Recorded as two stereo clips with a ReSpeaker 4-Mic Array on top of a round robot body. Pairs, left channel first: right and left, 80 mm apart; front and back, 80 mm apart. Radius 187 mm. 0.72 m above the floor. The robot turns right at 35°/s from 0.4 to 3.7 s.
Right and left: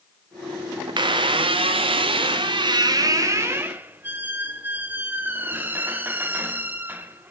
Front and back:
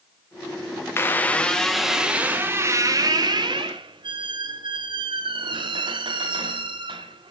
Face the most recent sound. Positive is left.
turn(degrees=155)